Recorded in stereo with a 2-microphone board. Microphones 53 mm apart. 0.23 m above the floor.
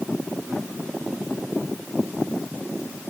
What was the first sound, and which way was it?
Only background noise.